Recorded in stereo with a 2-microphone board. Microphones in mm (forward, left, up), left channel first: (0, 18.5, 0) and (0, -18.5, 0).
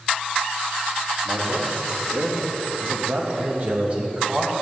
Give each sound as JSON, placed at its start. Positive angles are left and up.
{"t": 1.2, "sound": "a man speaking", "side_deg": -75, "distance_m": 3.0}